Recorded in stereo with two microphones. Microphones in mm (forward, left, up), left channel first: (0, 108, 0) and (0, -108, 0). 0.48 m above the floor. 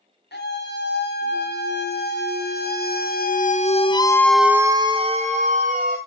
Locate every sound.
0.3 s a scream: 55° left (ahead or behind), 4 m; by 6.0 s 40° right (ahead or behind), 1.9 m